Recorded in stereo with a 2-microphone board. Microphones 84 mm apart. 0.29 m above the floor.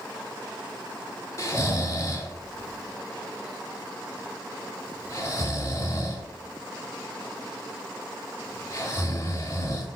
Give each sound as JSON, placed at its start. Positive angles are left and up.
{"t": 1.4, "sound": "snoring", "side_deg": 40, "distance_m": 1.8}